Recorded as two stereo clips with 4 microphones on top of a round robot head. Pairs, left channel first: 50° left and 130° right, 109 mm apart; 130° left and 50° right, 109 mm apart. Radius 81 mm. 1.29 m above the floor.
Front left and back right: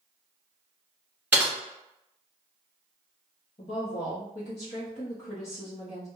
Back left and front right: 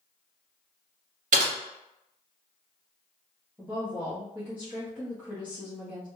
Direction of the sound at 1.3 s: 50° right.